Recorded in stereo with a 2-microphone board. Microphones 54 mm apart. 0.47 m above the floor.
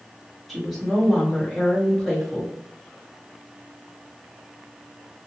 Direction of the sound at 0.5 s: Centre (ahead or behind).